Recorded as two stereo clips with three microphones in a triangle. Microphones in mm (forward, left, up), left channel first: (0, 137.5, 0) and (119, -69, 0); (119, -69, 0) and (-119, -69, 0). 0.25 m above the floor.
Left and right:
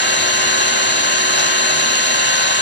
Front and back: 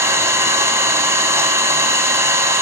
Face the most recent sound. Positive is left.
turn(degrees=105)